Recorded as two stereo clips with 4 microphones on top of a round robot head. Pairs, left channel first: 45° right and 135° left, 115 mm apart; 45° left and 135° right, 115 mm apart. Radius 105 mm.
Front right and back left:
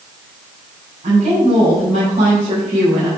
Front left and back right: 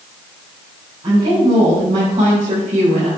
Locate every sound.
1.0 s a woman speaking: 175° left, 4 m; by 3.1 s 170° right, 4.5 m